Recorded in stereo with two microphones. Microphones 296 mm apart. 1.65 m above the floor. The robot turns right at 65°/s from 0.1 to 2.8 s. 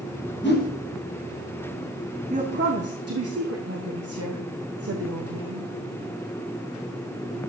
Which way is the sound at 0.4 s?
40° left (ahead or behind).